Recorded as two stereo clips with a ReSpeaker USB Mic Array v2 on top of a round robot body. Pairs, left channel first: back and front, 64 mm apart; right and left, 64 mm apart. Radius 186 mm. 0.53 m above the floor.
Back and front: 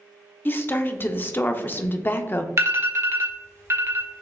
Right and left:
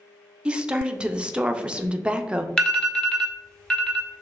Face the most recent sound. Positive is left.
turn(degrees=-15)